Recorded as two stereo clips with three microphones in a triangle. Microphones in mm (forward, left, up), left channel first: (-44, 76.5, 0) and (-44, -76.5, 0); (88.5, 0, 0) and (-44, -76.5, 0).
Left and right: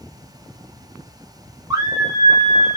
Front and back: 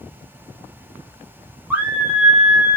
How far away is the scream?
About 1.2 m.